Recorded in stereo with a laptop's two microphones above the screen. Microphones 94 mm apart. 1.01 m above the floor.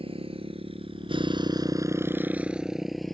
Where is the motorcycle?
85° right; by 3.1 s 5° left (ahead or behind).